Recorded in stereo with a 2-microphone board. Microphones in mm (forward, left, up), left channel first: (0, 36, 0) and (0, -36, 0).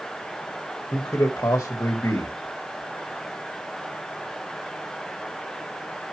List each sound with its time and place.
0.9 s a man speaking: 45° left (ahead or behind), 1.6 m